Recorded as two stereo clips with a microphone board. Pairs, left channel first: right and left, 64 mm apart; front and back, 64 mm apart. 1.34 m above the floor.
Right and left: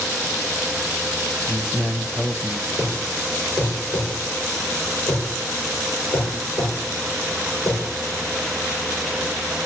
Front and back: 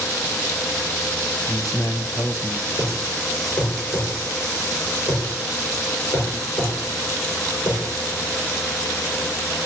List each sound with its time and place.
1.5 s a man speaking: 30° right, 1.0 m
2.8 s a thud: 65° right, 5.5 m